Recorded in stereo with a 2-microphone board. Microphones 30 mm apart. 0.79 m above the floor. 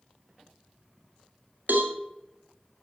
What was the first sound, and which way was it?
A cowbell, 65° right (ahead or behind).